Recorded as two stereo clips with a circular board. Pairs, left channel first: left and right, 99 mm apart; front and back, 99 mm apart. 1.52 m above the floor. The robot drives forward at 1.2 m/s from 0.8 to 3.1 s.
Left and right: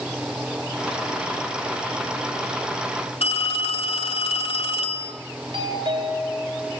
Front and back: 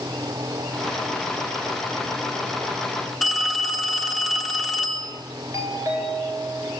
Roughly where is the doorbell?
Behind right.